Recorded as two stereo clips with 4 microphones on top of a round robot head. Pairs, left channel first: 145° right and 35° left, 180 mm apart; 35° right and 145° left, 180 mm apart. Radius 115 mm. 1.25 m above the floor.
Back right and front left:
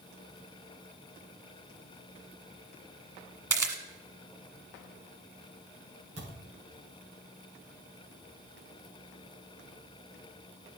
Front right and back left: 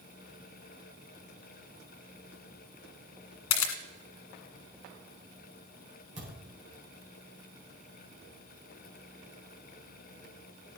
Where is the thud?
90° left, 7.5 m.